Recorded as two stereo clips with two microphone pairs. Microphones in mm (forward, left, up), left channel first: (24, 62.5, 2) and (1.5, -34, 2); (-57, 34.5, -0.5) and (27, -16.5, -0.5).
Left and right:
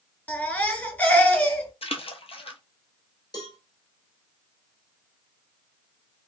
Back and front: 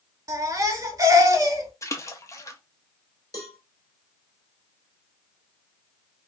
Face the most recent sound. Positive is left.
turn(degrees=105)